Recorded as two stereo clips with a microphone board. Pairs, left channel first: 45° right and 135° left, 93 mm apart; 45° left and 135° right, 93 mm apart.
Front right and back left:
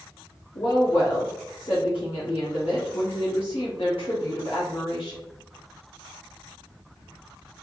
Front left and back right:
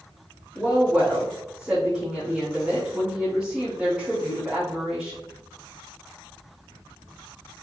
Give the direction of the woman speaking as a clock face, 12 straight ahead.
2 o'clock.